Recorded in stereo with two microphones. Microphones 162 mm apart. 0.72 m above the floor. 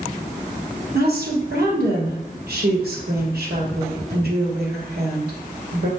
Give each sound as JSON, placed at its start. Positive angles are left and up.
{"t": 0.9, "sound": "a woman speaking", "side_deg": -75, "distance_m": 2.5}